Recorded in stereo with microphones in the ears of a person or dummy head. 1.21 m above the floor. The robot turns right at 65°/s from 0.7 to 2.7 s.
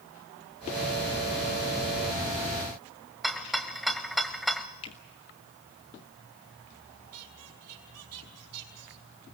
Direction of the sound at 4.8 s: 30° left (ahead or behind).